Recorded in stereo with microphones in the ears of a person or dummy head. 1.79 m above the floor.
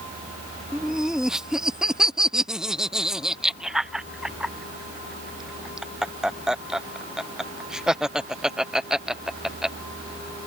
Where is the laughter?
5° right (ahead or behind).